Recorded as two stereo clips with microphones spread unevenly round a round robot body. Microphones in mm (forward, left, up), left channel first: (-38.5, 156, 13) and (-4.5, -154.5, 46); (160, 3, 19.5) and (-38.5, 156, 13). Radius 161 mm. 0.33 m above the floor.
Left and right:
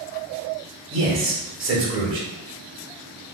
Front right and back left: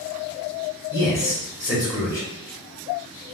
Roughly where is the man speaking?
Right.